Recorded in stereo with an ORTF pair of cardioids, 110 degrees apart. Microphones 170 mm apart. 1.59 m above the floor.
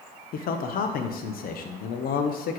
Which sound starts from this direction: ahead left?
A man speaking, at 0.3 s.